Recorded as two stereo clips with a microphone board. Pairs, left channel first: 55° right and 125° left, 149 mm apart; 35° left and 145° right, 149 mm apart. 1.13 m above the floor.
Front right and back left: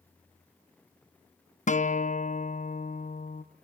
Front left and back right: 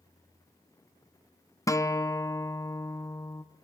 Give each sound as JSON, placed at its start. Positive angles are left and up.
{"t": 1.7, "sound": "a guitar", "azimuth_deg": -30, "distance_m": 0.7}